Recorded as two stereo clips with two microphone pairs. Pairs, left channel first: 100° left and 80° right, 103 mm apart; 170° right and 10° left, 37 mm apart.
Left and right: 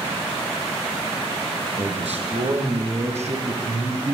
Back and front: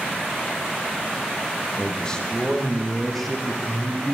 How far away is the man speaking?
About 5.5 m.